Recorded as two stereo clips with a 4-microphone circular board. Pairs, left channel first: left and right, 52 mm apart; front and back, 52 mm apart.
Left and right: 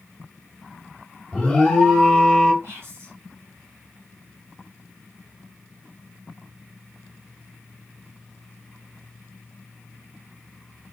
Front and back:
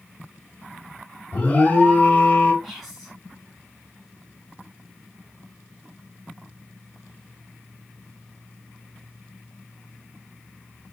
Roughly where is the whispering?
Right.